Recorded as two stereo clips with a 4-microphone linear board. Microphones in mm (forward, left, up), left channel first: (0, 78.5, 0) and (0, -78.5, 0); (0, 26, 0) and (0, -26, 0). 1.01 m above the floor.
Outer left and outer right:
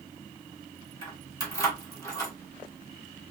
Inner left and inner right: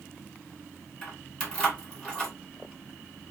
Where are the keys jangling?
20° left (ahead or behind), 1.8 m.